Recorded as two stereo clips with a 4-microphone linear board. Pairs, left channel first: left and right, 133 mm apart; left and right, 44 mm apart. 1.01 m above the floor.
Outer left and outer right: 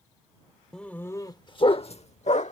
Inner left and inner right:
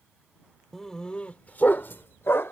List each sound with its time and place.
0.7 s a dog barking: 5° left (ahead or behind); by 2.5 s 60° left (ahead or behind)